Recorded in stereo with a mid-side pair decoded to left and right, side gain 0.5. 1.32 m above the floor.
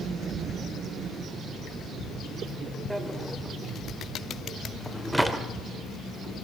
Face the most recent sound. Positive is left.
turn(degrees=-5)